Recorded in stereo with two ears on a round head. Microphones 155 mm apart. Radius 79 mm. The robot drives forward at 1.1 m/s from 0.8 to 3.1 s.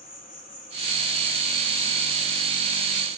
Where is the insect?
35° left (ahead or behind), 9.5 m; by 3.2 s 30° left (ahead or behind), 11.5 m.